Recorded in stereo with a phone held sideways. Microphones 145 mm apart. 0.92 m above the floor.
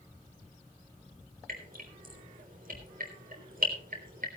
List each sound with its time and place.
1.5 s dripping: 75° right (ahead or behind), 3.5 m